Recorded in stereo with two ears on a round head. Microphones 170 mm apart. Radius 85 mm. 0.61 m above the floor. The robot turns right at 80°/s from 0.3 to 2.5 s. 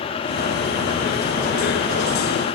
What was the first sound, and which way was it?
Only background noise.